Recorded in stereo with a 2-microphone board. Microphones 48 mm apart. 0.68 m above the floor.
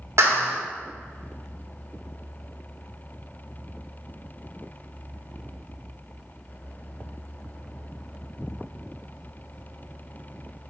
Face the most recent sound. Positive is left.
turn(degrees=-70)  # may be behind; listen again after turning